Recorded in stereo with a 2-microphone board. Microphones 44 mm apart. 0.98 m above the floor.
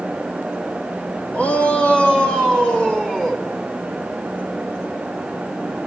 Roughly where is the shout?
Left.